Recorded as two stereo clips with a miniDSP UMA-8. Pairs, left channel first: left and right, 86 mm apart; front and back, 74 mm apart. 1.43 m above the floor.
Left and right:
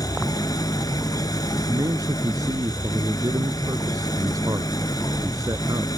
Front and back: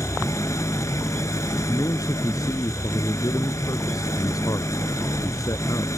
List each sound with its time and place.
0.0 s an engine running: 45° left
1.7 s a man speaking: 40° right